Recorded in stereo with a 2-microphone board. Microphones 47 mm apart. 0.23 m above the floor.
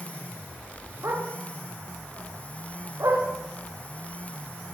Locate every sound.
1.0 s a dog barking: 85° right, 10 m